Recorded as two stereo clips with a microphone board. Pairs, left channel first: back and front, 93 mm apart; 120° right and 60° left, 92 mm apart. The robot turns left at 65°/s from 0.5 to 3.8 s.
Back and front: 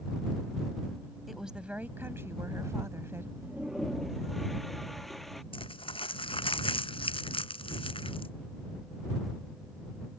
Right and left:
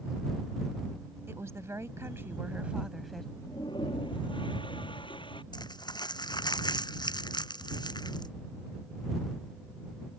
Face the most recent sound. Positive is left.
turn(degrees=-160)